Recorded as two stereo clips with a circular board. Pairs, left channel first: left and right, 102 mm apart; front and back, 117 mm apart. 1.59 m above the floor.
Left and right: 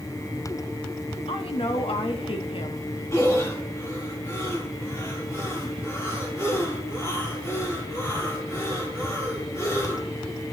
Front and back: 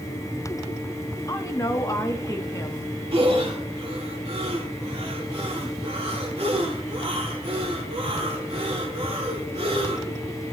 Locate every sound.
1.3 s a woman speaking: 65° left, 1.2 m
3.1 s breathing: 150° left, 2.5 m